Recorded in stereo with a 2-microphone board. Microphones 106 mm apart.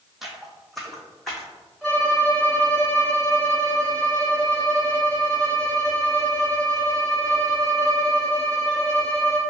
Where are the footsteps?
Centre (ahead or behind), 0.8 m; by 1.5 s 5° left (ahead or behind), 1.5 m.